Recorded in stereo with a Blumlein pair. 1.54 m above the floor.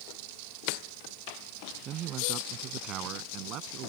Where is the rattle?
No rattle in this recording.